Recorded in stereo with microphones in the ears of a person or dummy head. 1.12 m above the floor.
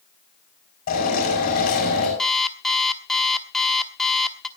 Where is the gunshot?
I don't hear a gunshot.